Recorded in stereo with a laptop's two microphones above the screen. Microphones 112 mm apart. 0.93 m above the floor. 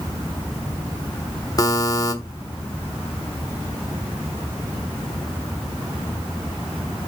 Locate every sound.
1.6 s a buzzer: 35° left (ahead or behind), 1.2 m